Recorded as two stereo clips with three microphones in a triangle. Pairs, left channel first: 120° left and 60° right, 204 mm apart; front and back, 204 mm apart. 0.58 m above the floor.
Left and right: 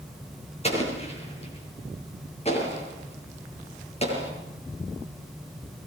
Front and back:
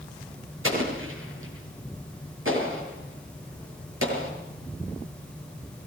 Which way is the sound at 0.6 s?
Straight behind.